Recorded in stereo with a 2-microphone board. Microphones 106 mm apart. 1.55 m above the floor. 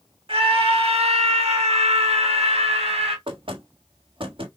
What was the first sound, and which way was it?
A scream, 60° right (ahead or behind).